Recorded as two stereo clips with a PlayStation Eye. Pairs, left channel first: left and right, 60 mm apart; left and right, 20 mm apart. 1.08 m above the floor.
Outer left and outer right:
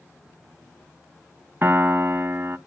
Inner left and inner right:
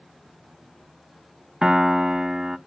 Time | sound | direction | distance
1.6 | a piano | 40° right (ahead or behind) | 0.7 m